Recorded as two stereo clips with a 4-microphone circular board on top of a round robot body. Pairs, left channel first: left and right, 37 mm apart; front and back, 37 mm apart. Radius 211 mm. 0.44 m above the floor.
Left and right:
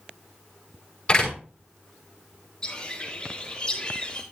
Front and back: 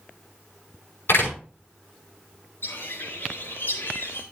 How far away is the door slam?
About 6 m.